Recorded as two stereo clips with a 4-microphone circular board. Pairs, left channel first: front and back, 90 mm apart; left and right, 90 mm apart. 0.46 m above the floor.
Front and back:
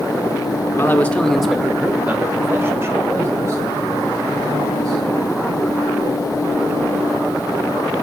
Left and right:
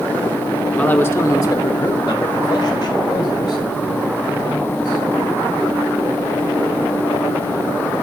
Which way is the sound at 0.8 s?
25° left.